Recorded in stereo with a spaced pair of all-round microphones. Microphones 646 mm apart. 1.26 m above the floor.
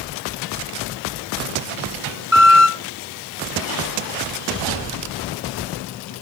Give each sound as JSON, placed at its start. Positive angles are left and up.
{"t": 2.3, "sound": "a squeak", "side_deg": -5, "distance_m": 1.1}